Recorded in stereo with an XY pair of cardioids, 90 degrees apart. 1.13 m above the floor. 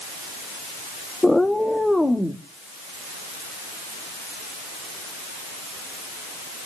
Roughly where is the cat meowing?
Ahead.